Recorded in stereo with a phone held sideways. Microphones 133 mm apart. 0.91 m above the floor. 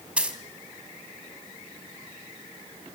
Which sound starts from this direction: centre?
A dropped coin, at 0.2 s.